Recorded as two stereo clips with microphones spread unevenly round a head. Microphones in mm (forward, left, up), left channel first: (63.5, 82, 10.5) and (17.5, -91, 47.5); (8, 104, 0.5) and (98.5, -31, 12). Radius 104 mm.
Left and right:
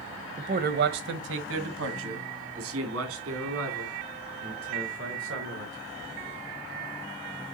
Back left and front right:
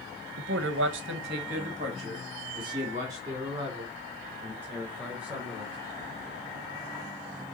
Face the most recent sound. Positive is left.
turn(degrees=-140)